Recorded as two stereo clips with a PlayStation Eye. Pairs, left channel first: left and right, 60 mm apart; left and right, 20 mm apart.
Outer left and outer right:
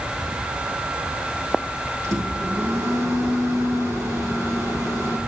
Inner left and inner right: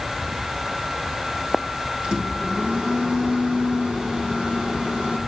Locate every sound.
2.0 s a microwave: 55° right (ahead or behind), 3.5 m